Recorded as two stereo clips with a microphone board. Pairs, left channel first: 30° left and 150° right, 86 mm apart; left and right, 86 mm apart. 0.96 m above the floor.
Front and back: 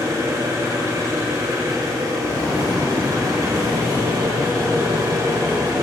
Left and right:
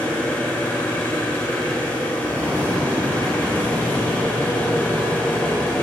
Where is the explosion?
30° right, 2.0 m.